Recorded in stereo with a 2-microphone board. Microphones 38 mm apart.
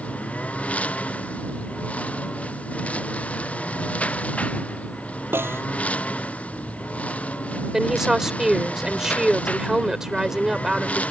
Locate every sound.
0.0 s a lawn mower: 35° left (ahead or behind)
5.3 s a snare drum: 85° right
7.7 s a woman speaking: 10° right (ahead or behind)